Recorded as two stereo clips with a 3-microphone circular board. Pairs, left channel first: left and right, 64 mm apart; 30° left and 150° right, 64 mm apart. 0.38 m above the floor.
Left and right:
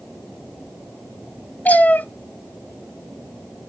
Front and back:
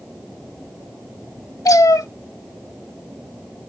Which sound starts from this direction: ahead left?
A cat meowing, at 1.6 s.